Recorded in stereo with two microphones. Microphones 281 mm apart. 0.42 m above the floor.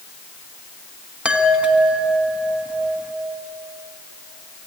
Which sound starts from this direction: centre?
A chime, at 1.2 s.